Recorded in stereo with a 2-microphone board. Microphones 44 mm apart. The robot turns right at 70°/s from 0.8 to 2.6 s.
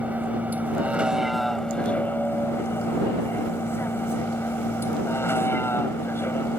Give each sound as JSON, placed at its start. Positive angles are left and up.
{"t": 0.0, "sound": "a vehicle", "azimuth_deg": -40}